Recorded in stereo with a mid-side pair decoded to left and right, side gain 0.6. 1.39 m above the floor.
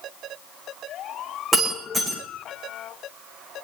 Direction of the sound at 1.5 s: 10° right.